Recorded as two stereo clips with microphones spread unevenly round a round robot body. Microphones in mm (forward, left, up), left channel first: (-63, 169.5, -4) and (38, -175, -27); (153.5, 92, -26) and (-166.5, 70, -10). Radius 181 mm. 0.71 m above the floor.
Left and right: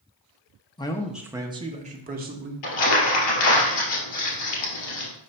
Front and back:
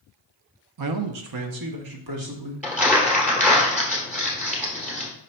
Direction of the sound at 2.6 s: 100° left.